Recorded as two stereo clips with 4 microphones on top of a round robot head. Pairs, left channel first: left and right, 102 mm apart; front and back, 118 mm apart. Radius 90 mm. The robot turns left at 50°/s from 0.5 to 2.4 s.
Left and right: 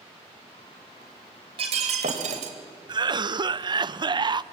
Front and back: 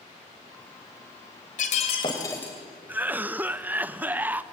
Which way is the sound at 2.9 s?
110° right.